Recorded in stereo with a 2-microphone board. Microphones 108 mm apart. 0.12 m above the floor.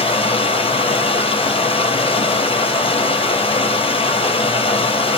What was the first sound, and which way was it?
Running water, 60° left (ahead or behind).